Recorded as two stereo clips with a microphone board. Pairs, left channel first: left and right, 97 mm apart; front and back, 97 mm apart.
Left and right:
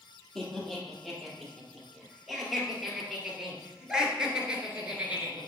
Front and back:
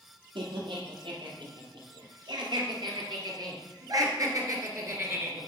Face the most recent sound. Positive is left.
turn(degrees=-145)